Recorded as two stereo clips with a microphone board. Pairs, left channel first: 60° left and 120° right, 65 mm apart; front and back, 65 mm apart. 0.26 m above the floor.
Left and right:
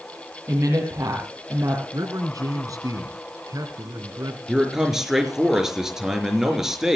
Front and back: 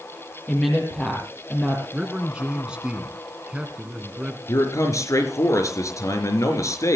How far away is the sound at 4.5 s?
About 4 m.